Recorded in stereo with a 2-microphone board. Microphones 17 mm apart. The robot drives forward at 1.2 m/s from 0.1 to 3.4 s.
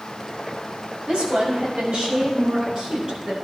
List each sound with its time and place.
1.1 s a woman speaking: 75° right (ahead or behind), 6.5 m; by 3.4 s 55° right (ahead or behind), 7.5 m